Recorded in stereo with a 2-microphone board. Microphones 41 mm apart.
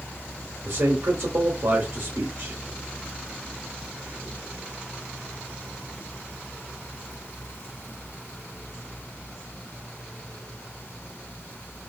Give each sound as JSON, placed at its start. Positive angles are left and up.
{"t": 0.7, "sound": "a man speaking", "side_deg": -75, "distance_m": 0.9}